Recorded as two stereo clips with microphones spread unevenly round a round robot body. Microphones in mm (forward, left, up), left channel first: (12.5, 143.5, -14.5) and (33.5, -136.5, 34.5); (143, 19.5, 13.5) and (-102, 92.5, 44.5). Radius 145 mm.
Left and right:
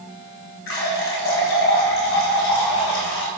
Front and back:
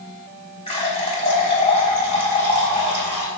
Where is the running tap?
50° left, 3.5 m.